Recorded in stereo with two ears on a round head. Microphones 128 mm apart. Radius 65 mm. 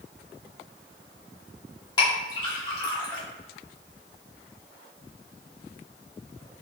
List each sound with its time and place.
2.0 s a clink: 30° left (ahead or behind), 1.1 m